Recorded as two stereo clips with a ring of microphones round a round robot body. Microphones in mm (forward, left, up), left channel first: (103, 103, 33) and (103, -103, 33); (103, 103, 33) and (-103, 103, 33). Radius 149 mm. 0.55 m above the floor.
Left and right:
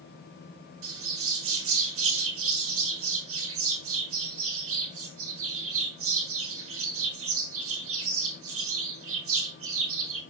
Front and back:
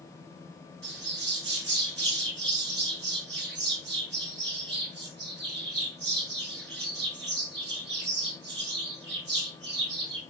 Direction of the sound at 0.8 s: 90° right.